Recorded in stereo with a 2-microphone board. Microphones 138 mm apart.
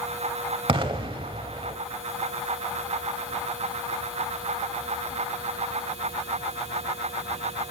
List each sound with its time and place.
0.7 s an explosion: 45° right (ahead or behind), 0.9 m